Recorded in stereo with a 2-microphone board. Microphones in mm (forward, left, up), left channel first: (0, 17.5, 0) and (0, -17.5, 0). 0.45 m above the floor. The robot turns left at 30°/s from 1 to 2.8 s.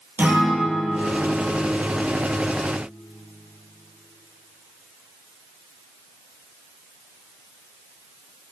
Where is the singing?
I don't hear singing.